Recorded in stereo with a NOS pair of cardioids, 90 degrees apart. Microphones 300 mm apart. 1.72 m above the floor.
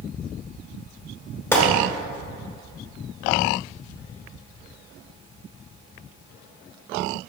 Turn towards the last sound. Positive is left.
turn(degrees=10)